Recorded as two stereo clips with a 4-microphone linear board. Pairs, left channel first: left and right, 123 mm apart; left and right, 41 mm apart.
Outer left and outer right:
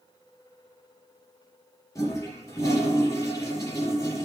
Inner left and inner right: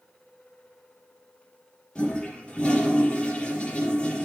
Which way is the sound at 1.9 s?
25° left (ahead or behind).